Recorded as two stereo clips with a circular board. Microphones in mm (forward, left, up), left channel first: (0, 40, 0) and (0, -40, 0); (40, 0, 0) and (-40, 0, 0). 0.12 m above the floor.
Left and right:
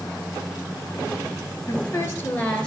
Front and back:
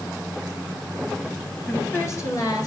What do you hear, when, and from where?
1.7 s a woman speaking: 55° left, 2 m; by 2.7 s 15° left, 2.0 m